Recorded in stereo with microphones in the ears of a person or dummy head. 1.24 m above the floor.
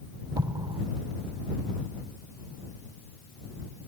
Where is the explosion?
25° right (ahead or behind).